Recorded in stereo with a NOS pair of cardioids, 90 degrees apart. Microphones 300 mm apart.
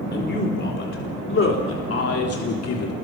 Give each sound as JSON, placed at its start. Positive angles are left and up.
{"t": 0.1, "sound": "a man speaking", "azimuth_deg": 35, "distance_m": 4.0}